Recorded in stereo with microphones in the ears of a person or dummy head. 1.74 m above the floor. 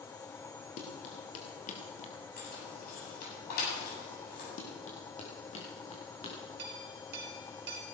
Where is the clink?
60° right (ahead or behind), 3.5 m.